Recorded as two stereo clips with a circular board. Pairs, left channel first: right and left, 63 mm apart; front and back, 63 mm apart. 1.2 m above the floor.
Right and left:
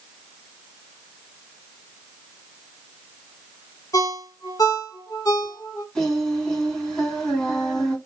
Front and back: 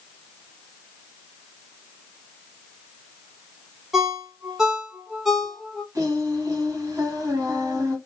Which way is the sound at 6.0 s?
165° right.